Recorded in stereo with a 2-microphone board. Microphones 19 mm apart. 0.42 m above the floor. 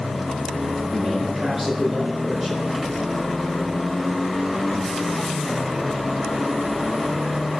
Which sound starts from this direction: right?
A man speaking, at 0.9 s.